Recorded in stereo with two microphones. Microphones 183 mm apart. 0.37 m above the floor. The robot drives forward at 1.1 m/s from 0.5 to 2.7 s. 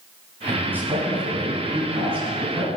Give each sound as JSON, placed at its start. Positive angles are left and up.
{"t": 0.5, "sound": "a man speaking", "side_deg": -10, "distance_m": 3.0}